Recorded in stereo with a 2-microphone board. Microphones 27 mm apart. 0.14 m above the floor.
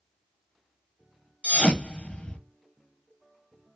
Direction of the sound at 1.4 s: 40° left (ahead or behind).